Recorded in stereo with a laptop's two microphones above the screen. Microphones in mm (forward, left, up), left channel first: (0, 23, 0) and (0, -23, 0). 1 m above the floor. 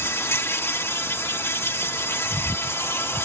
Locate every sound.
0.0 s an insect: 65° left (ahead or behind)